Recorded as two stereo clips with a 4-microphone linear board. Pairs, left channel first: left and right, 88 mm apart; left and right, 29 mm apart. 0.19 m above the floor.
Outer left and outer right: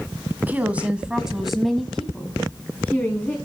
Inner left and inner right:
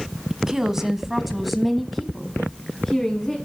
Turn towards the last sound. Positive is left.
turn(degrees=20)  # may be behind; listen again after turning